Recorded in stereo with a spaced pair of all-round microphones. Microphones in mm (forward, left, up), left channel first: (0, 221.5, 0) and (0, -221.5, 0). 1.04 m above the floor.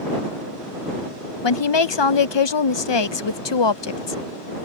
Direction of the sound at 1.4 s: 70° left (ahead or behind).